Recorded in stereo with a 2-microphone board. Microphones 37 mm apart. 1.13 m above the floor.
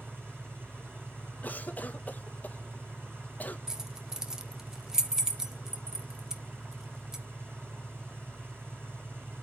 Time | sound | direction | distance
0.0 | an engine running | 80° right | 7 m
1.4 | a cough | 45° left (ahead or behind) | 1.6 m
3.7 | keys jangling | 20° right (ahead or behind) | 1.2 m